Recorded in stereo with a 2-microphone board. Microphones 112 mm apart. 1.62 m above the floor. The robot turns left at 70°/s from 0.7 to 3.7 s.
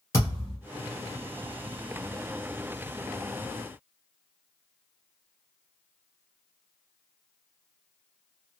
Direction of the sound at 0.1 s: 25° left (ahead or behind).